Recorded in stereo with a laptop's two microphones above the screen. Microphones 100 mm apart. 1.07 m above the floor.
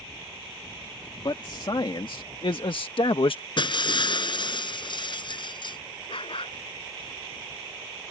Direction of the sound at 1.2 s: 50° left (ahead or behind).